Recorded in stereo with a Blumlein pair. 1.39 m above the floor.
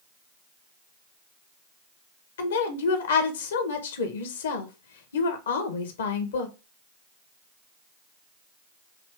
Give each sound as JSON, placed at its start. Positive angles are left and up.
{"t": 2.4, "sound": "a woman speaking", "azimuth_deg": 60, "distance_m": 1.1}